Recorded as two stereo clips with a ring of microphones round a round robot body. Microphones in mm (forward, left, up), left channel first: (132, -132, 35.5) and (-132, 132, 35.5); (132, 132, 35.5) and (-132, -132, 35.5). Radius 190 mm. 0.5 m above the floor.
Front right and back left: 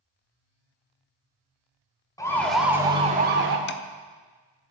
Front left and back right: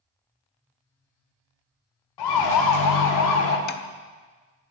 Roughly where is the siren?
Ahead left.